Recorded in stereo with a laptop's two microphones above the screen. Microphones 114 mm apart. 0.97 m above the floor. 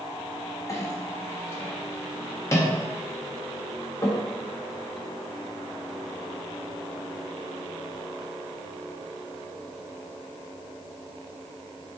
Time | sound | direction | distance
0.7 | a clink | 25° left (ahead or behind) | 1.1 m